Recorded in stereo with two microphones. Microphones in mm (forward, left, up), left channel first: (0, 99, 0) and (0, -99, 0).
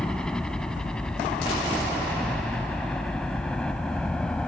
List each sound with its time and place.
0.0 s a helicopter: 5° left (ahead or behind)